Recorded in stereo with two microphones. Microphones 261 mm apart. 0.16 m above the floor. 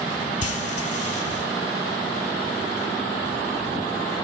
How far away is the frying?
About 0.9 m.